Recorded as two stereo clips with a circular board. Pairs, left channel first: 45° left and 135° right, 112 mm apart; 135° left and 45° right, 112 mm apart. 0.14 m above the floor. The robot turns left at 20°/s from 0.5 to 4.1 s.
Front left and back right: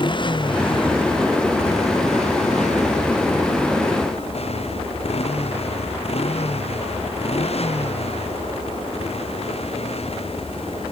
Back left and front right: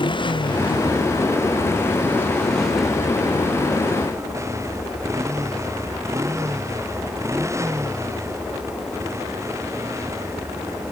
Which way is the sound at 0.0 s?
90° left.